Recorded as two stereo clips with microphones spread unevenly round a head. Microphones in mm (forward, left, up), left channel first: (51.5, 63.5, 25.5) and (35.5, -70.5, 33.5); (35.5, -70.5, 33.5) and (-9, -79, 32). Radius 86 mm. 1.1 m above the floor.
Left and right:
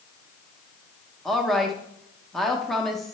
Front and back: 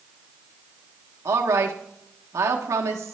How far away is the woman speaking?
About 0.7 m.